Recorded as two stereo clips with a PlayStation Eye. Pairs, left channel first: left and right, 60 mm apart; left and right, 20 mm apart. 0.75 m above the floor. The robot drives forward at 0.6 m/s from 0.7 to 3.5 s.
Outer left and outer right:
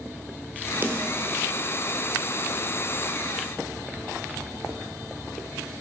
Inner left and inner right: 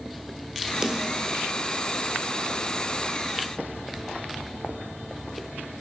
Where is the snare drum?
35° right (ahead or behind), 1.4 m; by 1.2 s 40° right (ahead or behind), 1.2 m.